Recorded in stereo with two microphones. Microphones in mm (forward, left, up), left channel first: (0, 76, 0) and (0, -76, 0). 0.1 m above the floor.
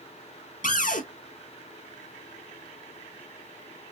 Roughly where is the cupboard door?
Left.